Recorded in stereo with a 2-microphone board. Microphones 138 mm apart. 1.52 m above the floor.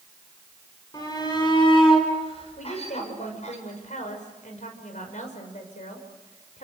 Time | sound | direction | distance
0.9 | a shout | 30° left (ahead or behind) | 7.5 m
2.6 | a woman speaking | 65° left (ahead or behind) | 6 m